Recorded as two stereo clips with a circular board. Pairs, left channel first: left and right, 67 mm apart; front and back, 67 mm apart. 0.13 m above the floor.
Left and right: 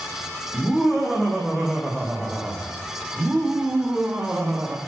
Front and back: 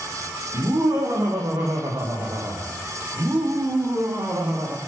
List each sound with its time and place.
0.5 s laughter: 175° left, 6.5 m; by 4.8 s 160° right, 5.5 m